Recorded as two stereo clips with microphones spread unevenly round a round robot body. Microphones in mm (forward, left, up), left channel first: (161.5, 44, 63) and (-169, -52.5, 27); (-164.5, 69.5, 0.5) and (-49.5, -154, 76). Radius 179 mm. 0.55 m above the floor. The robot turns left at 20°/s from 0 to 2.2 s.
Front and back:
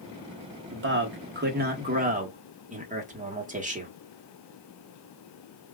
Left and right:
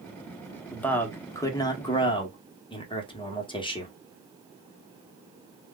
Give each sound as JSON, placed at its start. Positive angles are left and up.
{"t": 0.7, "sound": "a man speaking", "azimuth_deg": 180, "distance_m": 1.1}